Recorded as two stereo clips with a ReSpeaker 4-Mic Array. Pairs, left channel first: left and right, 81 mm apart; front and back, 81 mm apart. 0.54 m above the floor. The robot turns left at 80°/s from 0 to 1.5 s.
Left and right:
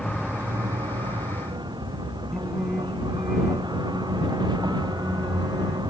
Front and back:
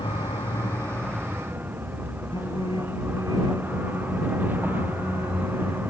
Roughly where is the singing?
Ahead.